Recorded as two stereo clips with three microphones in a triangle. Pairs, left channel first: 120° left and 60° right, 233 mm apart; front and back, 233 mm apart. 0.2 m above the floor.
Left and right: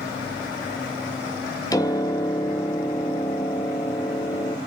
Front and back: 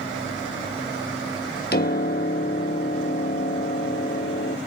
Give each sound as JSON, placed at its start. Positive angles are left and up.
{"t": 1.7, "sound": "a piano", "azimuth_deg": 45, "distance_m": 1.0}